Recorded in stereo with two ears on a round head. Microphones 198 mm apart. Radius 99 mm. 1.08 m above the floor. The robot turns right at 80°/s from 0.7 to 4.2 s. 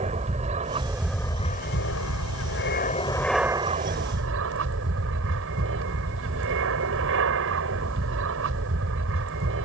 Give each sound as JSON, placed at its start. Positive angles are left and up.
{"t": 0.0, "sound": "an aircraft", "azimuth_deg": -30}